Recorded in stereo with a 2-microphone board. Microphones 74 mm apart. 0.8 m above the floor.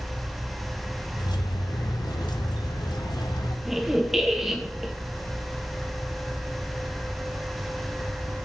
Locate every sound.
1.2 s keys jangling: 75° left (ahead or behind), 1.1 m
3.6 s a squeak: 5° right (ahead or behind), 1.7 m